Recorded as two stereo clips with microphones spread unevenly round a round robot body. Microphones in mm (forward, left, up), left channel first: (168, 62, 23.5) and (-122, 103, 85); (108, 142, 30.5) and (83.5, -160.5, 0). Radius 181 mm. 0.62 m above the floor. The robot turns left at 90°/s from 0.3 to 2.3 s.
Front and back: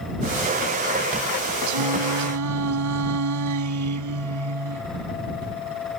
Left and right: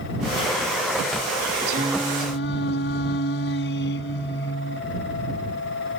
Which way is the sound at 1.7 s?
155° right.